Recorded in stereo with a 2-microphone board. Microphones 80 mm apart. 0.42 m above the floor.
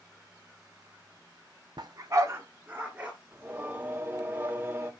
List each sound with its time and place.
1.8 s a dog barking: 70° right (ahead or behind), 0.9 m; by 3.1 s 20° right (ahead or behind), 2.5 m
3.3 s singing: 30° right (ahead or behind), 1.0 m